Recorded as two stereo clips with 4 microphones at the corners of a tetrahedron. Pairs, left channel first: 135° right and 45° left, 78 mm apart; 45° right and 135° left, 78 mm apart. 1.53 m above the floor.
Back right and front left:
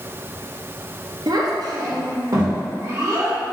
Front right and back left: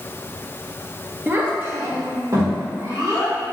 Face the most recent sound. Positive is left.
turn(degrees=95)